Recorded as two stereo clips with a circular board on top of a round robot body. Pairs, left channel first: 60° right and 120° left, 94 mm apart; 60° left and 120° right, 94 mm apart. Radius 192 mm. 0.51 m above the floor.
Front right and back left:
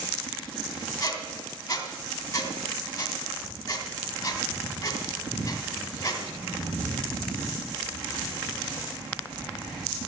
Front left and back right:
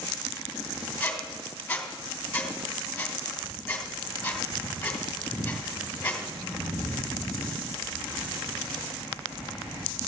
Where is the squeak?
15° right, 2 m.